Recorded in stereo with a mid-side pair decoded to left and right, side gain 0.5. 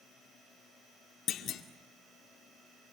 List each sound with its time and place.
1.3 s a clunk: 60° left, 2 m